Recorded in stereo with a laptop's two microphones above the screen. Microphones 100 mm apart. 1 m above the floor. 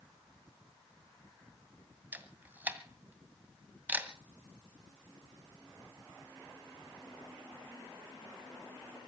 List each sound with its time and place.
2.1 s a camera shutter: 20° right (ahead or behind), 2 m